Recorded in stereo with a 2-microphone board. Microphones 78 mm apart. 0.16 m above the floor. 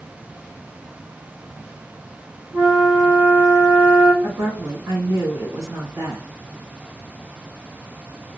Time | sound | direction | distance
2.5 | a flute | 35° right (ahead or behind) | 1.3 m
4.2 | a woman speaking | 40° right (ahead or behind) | 1.8 m